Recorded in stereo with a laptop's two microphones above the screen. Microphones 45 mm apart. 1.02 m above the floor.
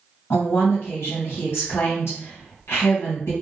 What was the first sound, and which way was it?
A woman speaking, 65° left (ahead or behind).